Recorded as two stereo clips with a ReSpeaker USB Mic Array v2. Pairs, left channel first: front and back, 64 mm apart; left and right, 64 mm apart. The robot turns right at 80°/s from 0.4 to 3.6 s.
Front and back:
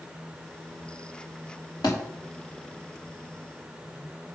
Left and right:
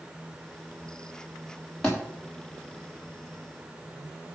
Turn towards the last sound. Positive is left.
turn(degrees=150)